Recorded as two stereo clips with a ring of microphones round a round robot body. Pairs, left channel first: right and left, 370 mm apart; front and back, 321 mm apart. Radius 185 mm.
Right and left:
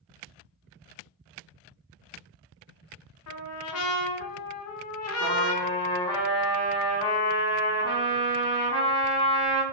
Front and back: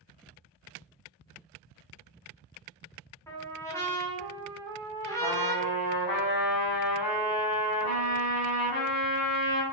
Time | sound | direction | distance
3.3 | a trumpet | 80° right | 0.8 m
5.2 | a trumpet | 10° right | 2 m